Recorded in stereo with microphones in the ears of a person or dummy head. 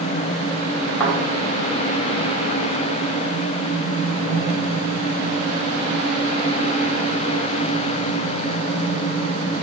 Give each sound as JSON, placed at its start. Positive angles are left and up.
{"t": 1.0, "sound": "a thud", "side_deg": 15, "distance_m": 3.0}